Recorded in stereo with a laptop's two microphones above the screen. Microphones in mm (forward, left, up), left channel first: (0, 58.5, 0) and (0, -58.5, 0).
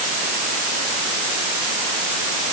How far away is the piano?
No piano in this recording.